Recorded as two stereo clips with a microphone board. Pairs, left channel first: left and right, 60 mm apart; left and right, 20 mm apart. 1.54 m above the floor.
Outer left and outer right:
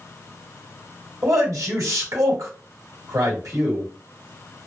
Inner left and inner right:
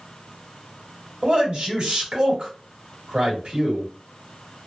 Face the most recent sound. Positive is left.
turn(degrees=-70)  # may be behind; listen again after turning